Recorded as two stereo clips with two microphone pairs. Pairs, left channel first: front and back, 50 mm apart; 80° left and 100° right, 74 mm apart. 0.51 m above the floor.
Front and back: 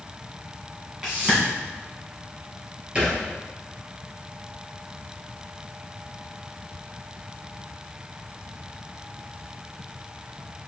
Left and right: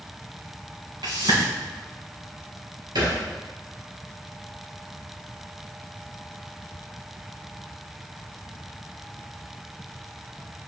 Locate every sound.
1.0 s a whoosh: 105° right, 3 m
3.0 s a thud: 115° right, 3 m